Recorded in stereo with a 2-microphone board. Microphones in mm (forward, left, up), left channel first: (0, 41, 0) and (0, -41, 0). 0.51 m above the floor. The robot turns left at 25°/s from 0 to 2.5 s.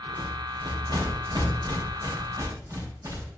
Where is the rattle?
60° right (ahead or behind), 3 m; by 3.3 s 45° right (ahead or behind), 3 m.